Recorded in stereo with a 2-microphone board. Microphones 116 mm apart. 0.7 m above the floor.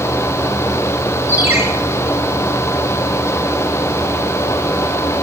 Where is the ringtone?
20° right (ahead or behind), 7 m.